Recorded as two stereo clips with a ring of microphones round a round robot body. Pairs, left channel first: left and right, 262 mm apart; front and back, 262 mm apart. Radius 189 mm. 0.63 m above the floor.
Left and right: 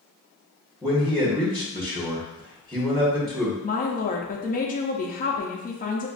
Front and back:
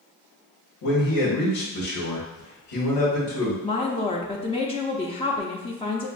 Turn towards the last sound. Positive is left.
turn(degrees=55)